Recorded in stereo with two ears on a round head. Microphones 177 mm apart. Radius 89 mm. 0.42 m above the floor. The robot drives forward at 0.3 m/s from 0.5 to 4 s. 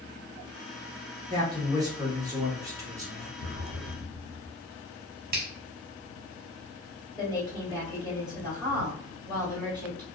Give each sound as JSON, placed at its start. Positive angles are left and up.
{"t": 1.3, "sound": "a man speaking", "side_deg": -20, "distance_m": 1.0}
{"t": 3.4, "sound": "an explosion", "side_deg": -60, "distance_m": 0.7}
{"t": 5.3, "sound": "a finger snap", "side_deg": -50, "distance_m": 0.7}
{"t": 7.2, "sound": "a woman speaking", "side_deg": 0, "distance_m": 1.9}